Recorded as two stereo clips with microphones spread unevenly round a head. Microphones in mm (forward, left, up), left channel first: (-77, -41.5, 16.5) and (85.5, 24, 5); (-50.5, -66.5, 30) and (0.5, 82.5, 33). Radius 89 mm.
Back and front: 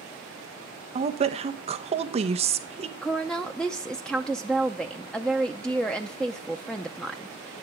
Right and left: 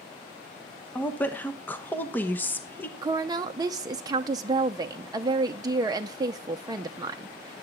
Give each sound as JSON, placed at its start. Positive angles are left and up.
{"t": 0.9, "sound": "a woman speaking", "azimuth_deg": -30, "distance_m": 0.9}
{"t": 3.0, "sound": "a woman speaking", "azimuth_deg": 115, "distance_m": 0.6}